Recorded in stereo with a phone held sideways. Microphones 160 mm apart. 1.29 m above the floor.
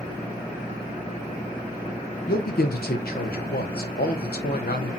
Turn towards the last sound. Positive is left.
turn(degrees=75)  # may be behind; listen again after turning